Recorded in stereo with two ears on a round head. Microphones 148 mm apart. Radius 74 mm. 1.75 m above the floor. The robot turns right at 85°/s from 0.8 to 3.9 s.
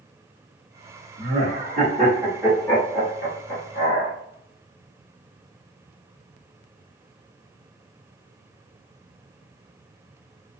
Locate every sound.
1.2 s laughter: 70° right (ahead or behind), 1.0 m; by 4.1 s 55° left (ahead or behind), 1.0 m